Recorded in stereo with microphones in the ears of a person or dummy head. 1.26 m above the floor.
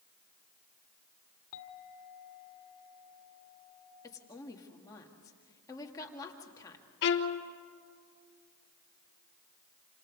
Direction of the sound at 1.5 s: 75° left (ahead or behind).